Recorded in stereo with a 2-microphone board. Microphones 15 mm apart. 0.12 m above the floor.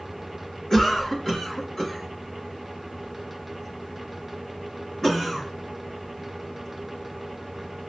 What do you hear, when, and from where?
0.7 s a cough: 20° left (ahead or behind), 1.8 m